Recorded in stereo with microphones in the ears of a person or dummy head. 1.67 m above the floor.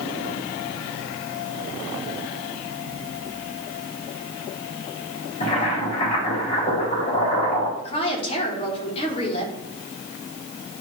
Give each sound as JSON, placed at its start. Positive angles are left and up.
{"t": 5.4, "sound": "boiling", "side_deg": 45, "distance_m": 3.5}
{"t": 7.8, "sound": "a woman speaking", "side_deg": 40, "distance_m": 2.0}